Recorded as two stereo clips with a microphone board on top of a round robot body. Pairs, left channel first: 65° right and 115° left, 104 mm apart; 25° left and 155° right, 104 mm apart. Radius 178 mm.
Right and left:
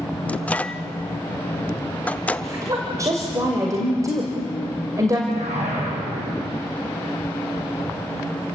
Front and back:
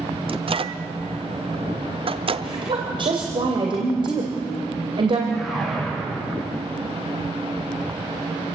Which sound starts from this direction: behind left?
A whoosh, at 5.3 s.